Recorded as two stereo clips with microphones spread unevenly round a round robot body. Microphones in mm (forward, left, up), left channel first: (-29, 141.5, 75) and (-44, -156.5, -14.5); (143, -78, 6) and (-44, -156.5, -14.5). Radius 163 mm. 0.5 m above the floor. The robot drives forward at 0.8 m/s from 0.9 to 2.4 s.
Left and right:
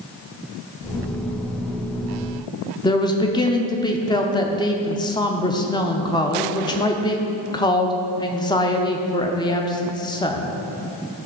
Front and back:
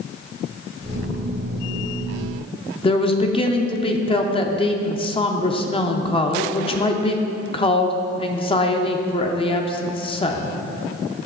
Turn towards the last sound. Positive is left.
turn(degrees=-10)